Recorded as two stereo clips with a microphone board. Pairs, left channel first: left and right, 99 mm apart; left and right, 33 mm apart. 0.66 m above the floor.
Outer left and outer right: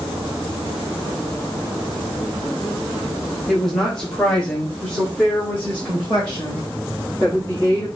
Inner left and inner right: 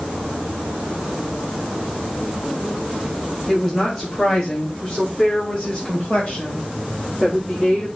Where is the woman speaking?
Centre (ahead or behind), 1.3 m; by 7.8 s 25° left (ahead or behind), 3 m.